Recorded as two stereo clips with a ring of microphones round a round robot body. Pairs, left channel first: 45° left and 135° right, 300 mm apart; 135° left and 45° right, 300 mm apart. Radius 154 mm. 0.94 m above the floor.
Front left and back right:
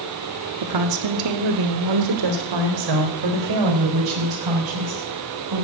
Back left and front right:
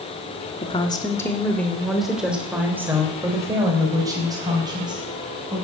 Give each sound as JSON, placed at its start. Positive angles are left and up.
{"t": 0.6, "sound": "a woman speaking", "azimuth_deg": -155, "distance_m": 1.9}